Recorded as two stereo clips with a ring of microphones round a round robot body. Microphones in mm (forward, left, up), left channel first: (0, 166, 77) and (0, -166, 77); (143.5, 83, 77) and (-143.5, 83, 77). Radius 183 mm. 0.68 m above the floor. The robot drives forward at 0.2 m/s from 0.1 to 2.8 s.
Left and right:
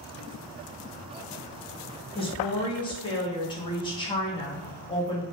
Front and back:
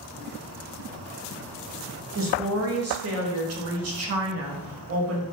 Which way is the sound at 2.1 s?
160° left.